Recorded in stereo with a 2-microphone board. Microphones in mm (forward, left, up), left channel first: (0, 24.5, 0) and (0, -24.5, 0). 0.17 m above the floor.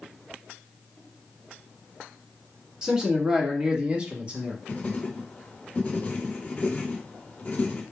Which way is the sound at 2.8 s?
15° right (ahead or behind).